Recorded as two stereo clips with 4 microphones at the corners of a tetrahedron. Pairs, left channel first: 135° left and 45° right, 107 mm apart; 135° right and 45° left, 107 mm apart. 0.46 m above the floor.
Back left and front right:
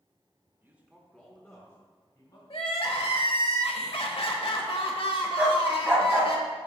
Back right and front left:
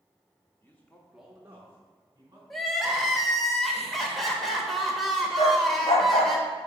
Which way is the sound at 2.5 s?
135° left.